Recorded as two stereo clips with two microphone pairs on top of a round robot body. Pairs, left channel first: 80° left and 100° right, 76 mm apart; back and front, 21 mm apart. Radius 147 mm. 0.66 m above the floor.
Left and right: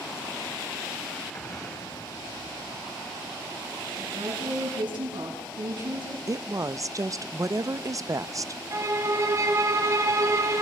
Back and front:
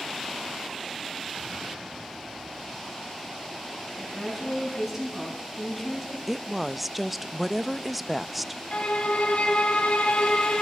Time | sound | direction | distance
1.4 | an explosion | 35° left | 5 m
4.0 | a woman speaking | 85° right | 6.5 m
6.3 | a woman speaking | 100° right | 0.7 m
8.7 | a violin | 155° right | 1.2 m